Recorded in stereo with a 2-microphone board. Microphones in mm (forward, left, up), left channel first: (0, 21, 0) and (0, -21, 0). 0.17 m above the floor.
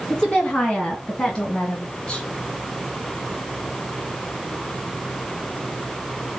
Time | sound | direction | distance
0.1 | a woman speaking | 15° left (ahead or behind) | 2 m